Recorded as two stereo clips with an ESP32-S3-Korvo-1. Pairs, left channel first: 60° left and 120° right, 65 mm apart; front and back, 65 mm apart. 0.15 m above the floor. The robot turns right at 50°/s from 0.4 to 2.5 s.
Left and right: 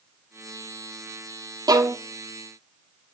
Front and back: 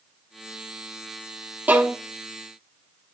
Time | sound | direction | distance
1.7 | a violin | 115° right | 0.9 m